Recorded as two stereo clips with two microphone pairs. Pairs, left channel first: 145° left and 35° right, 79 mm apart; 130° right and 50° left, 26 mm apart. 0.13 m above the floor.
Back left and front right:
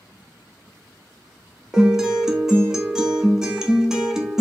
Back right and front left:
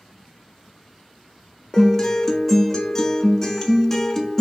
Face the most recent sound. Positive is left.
turn(degrees=-85)